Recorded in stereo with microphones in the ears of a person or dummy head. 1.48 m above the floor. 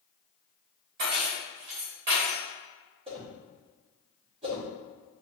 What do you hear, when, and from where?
1.0 s keys jangling: 50° right (ahead or behind), 1.1 m
3.1 s a whoosh: 30° right (ahead or behind), 1.4 m